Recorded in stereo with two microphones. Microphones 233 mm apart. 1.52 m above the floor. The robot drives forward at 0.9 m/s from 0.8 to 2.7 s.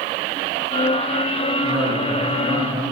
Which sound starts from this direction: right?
A man speaking, at 1.6 s.